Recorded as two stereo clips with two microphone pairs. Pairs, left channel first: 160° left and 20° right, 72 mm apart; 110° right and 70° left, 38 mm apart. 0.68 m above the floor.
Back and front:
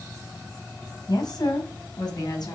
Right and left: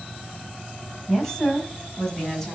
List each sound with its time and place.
1.1 s a woman speaking: 175° left, 4 m